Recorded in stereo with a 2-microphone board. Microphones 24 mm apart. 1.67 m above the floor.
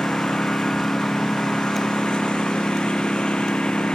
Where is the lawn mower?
40° left (ahead or behind).